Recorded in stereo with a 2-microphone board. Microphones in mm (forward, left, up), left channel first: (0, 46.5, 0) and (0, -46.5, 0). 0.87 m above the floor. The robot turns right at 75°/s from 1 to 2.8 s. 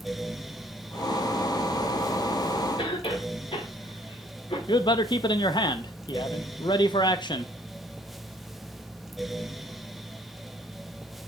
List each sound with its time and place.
2.8 s a cough: 75° left (ahead or behind), 2.5 m
4.7 s a man speaking: 55° left (ahead or behind), 0.7 m